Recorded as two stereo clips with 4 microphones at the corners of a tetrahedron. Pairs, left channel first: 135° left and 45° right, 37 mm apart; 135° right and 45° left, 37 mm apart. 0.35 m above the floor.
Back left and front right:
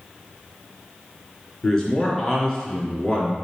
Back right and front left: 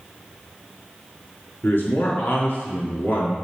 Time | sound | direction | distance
1.6 | a man speaking | 150° right | 3.5 m